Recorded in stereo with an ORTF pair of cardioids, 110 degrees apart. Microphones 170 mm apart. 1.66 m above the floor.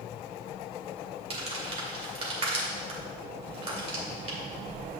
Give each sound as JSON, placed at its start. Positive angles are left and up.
{"t": 1.3, "sound": "crumpling", "azimuth_deg": -40, "distance_m": 2.0}